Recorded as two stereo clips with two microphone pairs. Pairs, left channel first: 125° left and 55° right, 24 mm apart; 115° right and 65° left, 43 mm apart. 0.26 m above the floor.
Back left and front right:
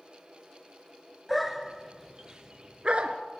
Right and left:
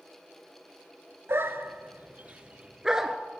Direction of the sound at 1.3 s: 40° left.